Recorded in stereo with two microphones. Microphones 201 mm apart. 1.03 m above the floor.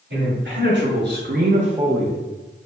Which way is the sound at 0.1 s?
60° right (ahead or behind).